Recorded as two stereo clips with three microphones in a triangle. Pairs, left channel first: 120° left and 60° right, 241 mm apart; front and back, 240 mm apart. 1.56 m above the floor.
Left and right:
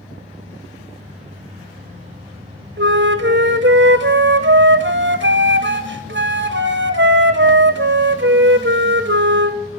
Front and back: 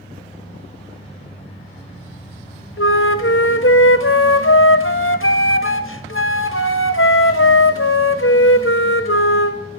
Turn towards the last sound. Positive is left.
turn(degrees=-25)